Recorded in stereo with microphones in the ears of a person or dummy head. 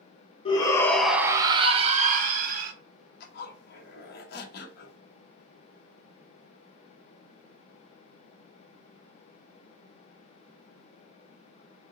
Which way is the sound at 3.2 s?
65° left (ahead or behind).